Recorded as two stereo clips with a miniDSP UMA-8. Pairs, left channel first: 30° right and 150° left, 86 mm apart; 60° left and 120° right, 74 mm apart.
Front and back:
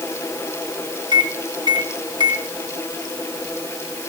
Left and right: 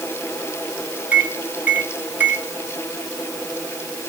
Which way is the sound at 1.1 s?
175° left.